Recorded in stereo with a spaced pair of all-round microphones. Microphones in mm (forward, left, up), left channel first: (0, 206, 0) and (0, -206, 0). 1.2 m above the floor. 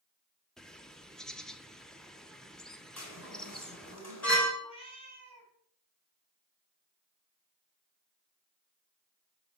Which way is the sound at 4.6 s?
15° left (ahead or behind).